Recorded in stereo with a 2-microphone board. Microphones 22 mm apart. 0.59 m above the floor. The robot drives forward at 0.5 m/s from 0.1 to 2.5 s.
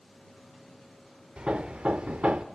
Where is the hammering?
50° right (ahead or behind), 0.9 m; by 2.5 s 75° right (ahead or behind), 0.8 m.